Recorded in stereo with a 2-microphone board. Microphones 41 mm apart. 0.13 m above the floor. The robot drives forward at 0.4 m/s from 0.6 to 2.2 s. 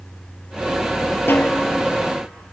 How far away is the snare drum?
About 0.8 m.